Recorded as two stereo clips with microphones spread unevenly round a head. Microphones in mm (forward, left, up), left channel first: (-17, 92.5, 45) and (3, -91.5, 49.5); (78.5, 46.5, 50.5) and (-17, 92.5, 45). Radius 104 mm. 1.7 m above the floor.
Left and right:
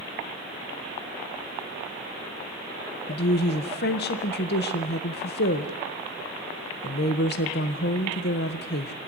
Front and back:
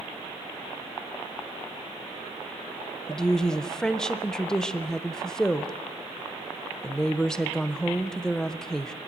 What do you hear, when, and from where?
3.1 s a woman speaking: 60° left, 1.6 m